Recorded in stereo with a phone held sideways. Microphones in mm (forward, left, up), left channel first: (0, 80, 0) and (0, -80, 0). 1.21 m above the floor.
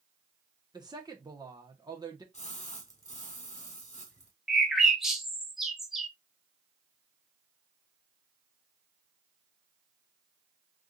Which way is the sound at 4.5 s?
Centre (ahead or behind).